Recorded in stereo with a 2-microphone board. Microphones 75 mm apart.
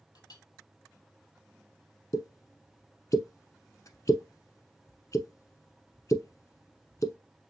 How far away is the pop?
About 0.8 m.